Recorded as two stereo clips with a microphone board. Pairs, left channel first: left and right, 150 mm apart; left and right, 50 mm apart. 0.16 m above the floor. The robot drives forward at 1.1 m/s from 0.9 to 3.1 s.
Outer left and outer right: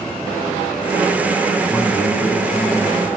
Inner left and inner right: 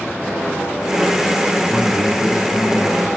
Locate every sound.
1.7 s a man speaking: 10° left (ahead or behind), 1.2 m; by 3.1 s 5° left (ahead or behind), 2.5 m